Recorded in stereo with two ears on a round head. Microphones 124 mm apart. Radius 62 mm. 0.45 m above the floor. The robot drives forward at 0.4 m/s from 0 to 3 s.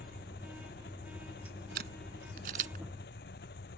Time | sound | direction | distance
0.0 | an engine running | 75° left (ahead or behind) | ?
1.8 | a camera shutter | 70° right (ahead or behind) | ?